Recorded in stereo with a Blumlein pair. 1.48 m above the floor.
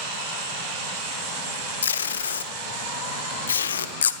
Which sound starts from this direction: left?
Tape being pulled, at 1.8 s.